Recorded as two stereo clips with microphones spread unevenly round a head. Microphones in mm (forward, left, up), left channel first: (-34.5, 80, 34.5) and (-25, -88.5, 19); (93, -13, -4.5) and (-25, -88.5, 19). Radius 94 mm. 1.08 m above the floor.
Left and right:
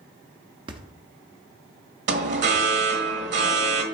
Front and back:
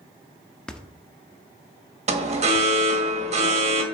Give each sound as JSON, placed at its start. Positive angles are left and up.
{"t": 0.7, "sound": "a thud", "azimuth_deg": -70, "distance_m": 0.6}
{"t": 2.1, "sound": "an alarm", "azimuth_deg": -105, "distance_m": 1.3}